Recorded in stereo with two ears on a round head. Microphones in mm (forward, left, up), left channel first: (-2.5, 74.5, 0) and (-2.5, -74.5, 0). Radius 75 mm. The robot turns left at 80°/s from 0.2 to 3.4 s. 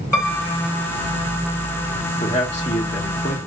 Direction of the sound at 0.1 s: 165° left.